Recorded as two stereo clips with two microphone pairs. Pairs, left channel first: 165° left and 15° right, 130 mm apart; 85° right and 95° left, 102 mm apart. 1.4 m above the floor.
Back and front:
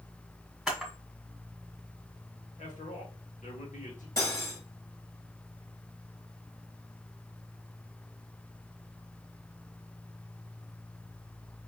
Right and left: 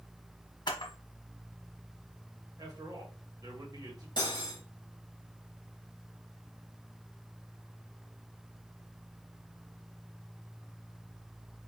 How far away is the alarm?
No alarm in this recording.